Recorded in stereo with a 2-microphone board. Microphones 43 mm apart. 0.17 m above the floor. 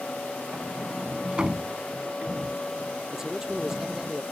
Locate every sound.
0.5 s a sliding door: 25° right (ahead or behind)
3.1 s a man speaking: 15° right (ahead or behind)